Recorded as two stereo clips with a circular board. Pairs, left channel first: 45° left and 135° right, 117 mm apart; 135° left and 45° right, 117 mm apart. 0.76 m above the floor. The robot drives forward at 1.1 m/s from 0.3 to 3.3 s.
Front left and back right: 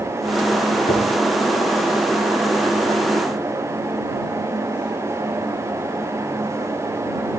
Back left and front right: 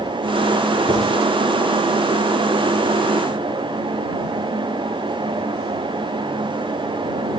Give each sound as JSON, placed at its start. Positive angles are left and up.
{"t": 0.9, "sound": "writing", "azimuth_deg": 15, "distance_m": 9.5}